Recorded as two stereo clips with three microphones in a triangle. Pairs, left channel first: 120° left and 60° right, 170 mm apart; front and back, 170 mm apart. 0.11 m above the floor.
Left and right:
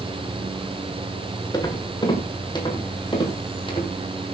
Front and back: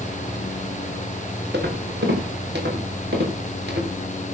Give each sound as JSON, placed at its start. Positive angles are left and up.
{"t": 1.5, "sound": "footsteps", "azimuth_deg": -175, "distance_m": 5.5}